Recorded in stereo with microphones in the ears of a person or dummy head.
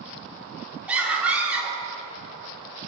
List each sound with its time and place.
0.9 s a scream: 5° right (ahead or behind), 3 m